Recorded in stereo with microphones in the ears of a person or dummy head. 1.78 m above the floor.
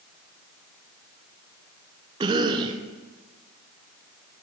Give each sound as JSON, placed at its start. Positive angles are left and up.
{"t": 2.2, "sound": "a cough", "side_deg": -25, "distance_m": 0.9}